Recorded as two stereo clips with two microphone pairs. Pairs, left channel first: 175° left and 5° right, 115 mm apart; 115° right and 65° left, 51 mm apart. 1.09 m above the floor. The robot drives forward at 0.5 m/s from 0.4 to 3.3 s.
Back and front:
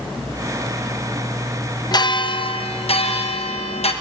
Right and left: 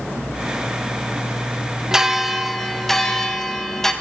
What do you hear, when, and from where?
1.9 s a bell: 140° left, 0.6 m; by 3.9 s 165° left, 1.1 m